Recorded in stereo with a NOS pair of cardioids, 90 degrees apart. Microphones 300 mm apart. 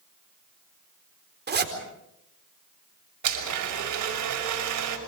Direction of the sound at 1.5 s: 35° right.